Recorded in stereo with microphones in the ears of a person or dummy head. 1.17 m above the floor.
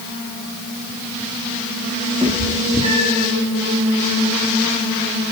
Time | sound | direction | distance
2.2 | a cat meowing | 30° right (ahead or behind) | 6.5 m